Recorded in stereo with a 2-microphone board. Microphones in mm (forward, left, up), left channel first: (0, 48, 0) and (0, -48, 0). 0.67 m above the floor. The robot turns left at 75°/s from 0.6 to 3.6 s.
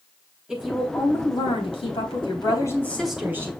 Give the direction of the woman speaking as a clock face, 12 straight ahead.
6 o'clock.